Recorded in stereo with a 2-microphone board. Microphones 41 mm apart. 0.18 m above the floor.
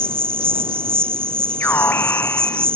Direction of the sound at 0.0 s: 65° right (ahead or behind).